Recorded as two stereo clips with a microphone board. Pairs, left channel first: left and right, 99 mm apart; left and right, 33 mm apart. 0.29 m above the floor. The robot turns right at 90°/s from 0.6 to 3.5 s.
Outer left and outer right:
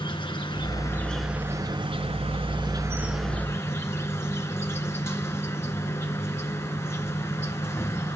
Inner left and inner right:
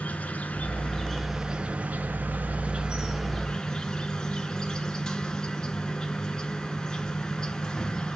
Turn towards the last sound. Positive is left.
turn(degrees=25)